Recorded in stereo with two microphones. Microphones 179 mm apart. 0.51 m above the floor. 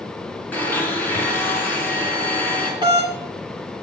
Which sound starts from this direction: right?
A doorbell, at 2.8 s.